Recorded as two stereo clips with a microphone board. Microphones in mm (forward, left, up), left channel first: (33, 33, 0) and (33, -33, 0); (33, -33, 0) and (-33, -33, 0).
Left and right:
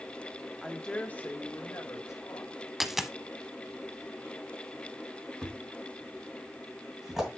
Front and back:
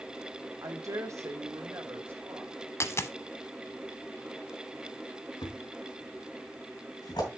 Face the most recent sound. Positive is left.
turn(degrees=-5)